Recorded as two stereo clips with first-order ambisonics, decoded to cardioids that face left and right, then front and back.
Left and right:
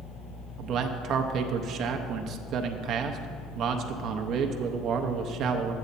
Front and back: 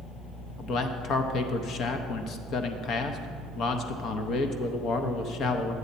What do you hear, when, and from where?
0.6 s a man speaking: 45° right, 0.6 m